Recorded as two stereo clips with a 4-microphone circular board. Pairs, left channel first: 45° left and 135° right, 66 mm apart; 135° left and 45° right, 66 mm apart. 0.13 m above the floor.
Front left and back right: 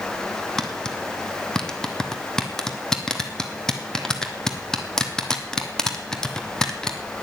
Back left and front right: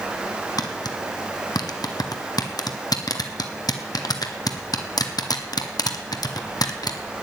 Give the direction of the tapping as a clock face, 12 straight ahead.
8 o'clock.